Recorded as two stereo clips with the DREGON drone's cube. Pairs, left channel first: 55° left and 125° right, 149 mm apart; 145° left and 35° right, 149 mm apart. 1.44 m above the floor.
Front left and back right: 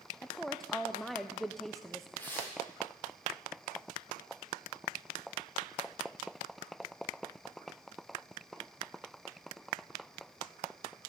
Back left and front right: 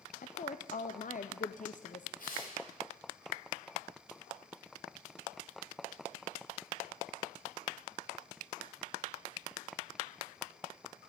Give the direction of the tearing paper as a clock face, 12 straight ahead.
8 o'clock.